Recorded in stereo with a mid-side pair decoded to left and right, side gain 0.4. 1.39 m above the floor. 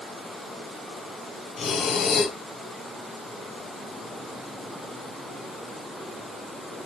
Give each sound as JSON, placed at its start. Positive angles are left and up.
{"t": 1.6, "sound": "breathing", "azimuth_deg": 60, "distance_m": 0.5}